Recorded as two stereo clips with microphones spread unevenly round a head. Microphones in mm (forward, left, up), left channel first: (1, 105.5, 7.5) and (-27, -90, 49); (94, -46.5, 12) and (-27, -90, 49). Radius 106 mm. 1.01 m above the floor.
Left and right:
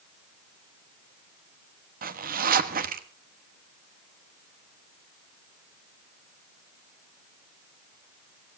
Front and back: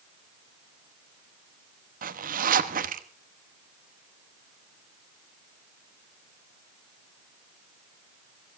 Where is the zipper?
145° right, 1.2 m.